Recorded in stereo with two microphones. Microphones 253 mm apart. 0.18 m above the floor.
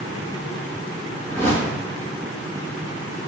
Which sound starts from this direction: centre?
A whoosh, at 1.3 s.